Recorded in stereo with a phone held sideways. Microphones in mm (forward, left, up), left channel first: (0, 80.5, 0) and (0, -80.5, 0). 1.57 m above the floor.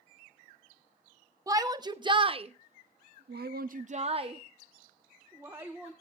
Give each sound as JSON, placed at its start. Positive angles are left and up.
{"t": 1.5, "sound": "a shout", "side_deg": -20, "distance_m": 1.3}